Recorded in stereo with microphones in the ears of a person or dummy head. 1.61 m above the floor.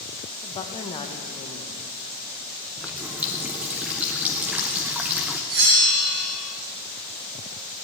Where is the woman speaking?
20° left (ahead or behind), 1.3 m.